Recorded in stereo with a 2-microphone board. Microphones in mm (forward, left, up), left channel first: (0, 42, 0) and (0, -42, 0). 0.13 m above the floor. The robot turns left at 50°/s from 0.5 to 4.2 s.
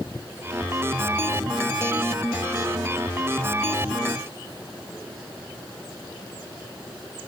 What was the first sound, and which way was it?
Only background noise.